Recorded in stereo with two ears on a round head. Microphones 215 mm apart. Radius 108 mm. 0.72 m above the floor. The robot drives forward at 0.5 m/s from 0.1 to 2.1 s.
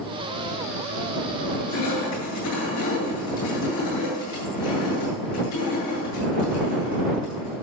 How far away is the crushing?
About 8 m.